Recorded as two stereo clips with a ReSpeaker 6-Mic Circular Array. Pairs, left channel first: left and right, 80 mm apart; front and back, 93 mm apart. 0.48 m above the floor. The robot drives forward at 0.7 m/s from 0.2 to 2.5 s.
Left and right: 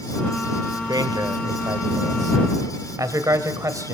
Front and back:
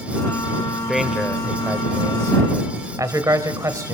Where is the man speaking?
90° right, 1.5 m; by 3.9 s 130° right, 1.9 m.